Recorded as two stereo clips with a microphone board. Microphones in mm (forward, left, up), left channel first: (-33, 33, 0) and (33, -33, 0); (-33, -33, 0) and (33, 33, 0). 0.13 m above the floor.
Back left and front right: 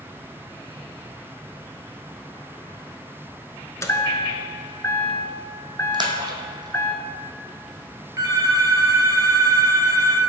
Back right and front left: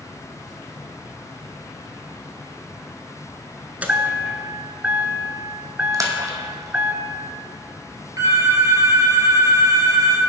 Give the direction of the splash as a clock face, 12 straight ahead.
12 o'clock.